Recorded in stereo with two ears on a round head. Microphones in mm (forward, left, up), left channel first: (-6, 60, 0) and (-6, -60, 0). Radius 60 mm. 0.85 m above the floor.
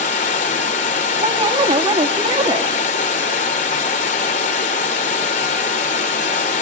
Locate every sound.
0.0 s running water: 60° left (ahead or behind), 2.5 m
1.2 s a woman speaking: 35° right (ahead or behind), 1.8 m